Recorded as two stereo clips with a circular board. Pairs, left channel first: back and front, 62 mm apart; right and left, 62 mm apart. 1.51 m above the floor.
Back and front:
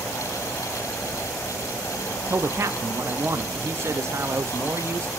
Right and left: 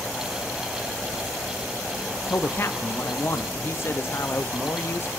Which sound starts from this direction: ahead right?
A man speaking, at 2.3 s.